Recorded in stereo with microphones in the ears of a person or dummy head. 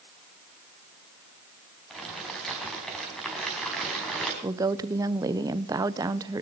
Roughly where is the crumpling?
Centre.